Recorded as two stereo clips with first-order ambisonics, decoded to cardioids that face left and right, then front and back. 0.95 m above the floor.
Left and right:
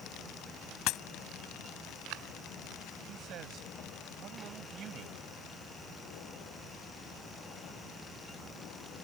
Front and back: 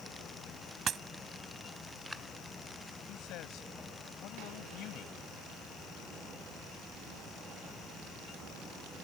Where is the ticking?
No ticking in this recording.